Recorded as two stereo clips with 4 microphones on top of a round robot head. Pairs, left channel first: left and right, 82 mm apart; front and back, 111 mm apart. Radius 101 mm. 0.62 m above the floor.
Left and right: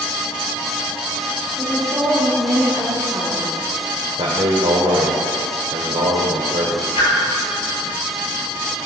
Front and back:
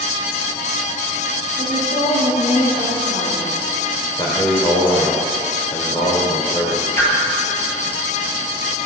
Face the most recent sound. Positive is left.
turn(degrees=65)